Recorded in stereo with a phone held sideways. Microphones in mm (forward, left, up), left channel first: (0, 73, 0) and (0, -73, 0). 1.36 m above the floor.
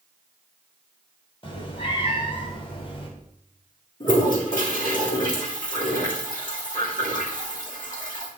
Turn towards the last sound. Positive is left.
turn(degrees=65)  # may be behind; listen again after turning